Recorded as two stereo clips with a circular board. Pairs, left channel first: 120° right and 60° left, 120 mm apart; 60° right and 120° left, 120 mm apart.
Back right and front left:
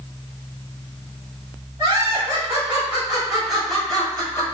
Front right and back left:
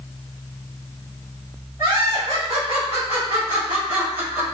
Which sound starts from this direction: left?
Laughter, at 1.8 s.